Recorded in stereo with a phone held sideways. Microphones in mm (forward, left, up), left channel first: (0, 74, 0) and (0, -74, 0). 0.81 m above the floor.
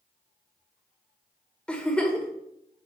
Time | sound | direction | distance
1.7 | a giggle | 5° left (ahead or behind) | 1.6 m